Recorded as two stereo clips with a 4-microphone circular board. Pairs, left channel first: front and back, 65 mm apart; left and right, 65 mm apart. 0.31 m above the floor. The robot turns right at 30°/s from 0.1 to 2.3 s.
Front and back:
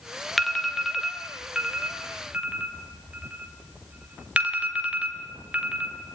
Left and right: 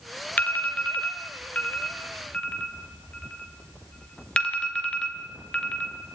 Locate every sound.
0.4 s an alarm: 85° left, 2 m; by 6.2 s 145° left, 2 m